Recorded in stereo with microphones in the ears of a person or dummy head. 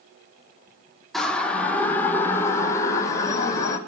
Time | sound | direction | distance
1.1 | a siren | 5° left (ahead or behind) | 4 m